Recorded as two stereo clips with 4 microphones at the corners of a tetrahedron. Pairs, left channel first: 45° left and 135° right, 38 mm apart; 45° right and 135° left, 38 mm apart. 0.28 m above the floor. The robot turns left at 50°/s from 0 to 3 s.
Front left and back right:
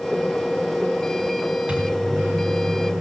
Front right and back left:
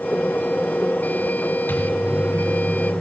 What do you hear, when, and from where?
1.7 s a microwave: 70° right, 3 m; by 3.0 s 135° right, 3 m